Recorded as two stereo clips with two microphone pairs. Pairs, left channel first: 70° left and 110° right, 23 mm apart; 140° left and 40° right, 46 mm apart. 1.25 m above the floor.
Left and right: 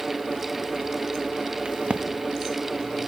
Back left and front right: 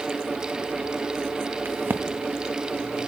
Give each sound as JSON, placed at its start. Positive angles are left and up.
{"t": 1.6, "sound": "a crack", "azimuth_deg": -75, "distance_m": 1.1}